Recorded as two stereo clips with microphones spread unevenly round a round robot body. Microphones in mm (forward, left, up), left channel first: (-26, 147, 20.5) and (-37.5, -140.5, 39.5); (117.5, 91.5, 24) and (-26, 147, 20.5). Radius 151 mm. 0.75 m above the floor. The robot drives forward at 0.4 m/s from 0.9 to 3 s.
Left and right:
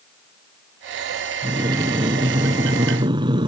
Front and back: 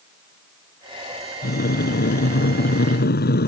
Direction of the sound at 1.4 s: 15° right.